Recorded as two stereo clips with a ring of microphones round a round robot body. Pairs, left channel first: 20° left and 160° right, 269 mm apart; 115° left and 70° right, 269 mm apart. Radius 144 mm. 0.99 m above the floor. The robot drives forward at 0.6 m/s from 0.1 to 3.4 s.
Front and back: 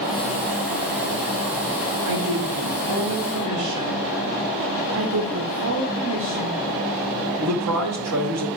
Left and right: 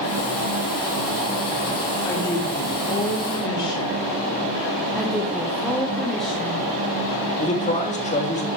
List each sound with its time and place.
2.0 s a woman speaking: 170° right, 2.0 m
5.0 s a woman speaking: 160° right, 1.0 m
7.4 s a man speaking: 175° left, 1.6 m